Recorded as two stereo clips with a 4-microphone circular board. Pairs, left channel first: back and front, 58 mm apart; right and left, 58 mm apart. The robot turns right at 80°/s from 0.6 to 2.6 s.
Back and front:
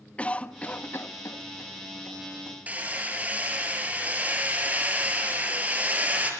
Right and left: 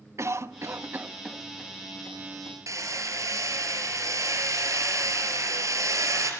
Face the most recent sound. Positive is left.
turn(degrees=65)